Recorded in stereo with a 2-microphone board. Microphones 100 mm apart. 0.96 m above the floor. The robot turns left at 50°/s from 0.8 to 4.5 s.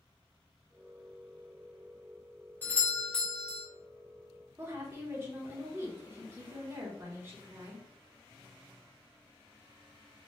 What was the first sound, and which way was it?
A doorbell, 20° left (ahead or behind).